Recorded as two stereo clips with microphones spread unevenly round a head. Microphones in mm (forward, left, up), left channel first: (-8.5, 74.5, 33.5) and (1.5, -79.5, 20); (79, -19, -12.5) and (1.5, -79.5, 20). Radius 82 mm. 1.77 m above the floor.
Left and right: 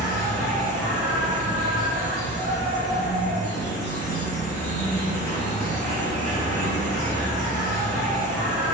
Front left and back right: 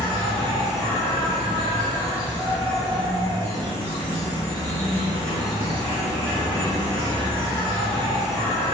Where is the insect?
160° left, 1.1 m.